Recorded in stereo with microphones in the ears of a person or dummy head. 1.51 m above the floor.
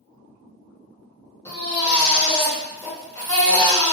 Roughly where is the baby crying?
Centre.